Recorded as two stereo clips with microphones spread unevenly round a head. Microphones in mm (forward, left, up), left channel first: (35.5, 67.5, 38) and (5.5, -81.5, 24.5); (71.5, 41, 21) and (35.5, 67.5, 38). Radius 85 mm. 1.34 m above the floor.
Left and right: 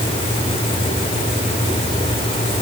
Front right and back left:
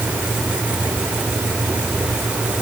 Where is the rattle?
No rattle in this recording.